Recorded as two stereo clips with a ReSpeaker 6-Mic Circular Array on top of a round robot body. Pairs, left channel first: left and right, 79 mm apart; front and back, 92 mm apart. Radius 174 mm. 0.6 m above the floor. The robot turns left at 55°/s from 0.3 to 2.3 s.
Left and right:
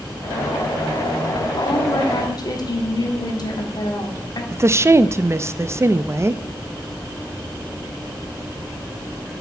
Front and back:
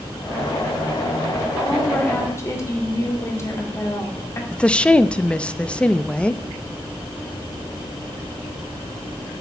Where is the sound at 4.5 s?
70° right, 0.6 m.